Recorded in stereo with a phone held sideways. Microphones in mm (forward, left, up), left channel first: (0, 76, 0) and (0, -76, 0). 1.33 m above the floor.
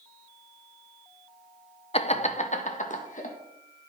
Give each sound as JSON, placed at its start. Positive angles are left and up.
{"t": 1.9, "sound": "laughter", "side_deg": 40, "distance_m": 0.7}